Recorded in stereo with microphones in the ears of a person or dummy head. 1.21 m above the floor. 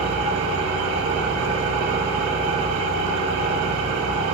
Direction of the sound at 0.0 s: 65° right (ahead or behind).